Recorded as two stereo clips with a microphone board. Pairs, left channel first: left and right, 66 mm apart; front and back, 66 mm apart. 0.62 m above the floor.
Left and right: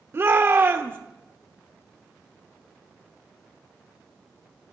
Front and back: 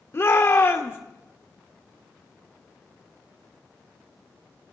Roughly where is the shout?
Ahead right.